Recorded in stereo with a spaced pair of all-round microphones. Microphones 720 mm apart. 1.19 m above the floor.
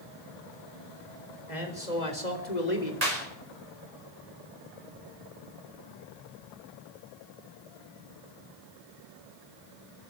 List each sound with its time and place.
1.5 s a man speaking: 85° left, 4.5 m
3.0 s a clap: 65° right (ahead or behind), 5 m